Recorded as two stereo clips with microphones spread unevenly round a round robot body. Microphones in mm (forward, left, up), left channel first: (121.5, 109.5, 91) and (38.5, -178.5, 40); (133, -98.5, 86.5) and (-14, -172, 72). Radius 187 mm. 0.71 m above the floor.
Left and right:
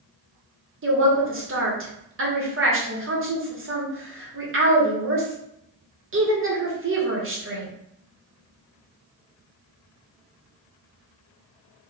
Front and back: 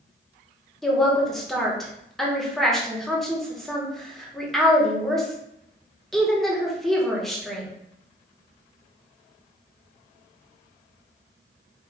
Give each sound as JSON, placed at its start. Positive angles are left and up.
{"t": 0.8, "sound": "a woman speaking", "azimuth_deg": -65, "distance_m": 1.5}